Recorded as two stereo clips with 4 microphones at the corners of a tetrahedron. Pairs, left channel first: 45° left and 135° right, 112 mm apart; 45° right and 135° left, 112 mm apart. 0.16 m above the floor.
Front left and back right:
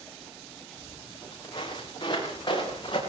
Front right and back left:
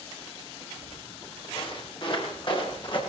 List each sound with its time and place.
0.8 s footsteps: 5° right, 6.5 m; by 3.0 s straight ahead, 7.5 m